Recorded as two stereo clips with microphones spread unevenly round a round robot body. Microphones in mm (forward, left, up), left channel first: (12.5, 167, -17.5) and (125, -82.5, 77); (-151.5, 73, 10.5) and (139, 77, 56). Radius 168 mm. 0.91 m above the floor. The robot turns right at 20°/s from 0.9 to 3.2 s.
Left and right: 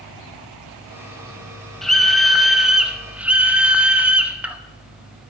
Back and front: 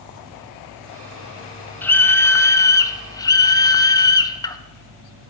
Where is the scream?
135° left, 0.8 m; by 4.6 s 160° left, 0.8 m.